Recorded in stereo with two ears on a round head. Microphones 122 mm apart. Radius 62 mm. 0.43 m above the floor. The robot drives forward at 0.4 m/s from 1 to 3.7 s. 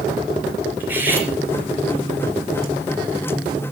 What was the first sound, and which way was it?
Cutlery clinking, 15° right (ahead or behind).